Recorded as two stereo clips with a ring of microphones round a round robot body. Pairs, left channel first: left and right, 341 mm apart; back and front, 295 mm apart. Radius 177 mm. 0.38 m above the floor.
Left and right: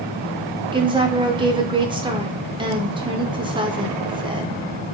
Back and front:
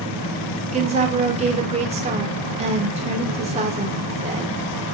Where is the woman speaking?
35° right, 0.8 m.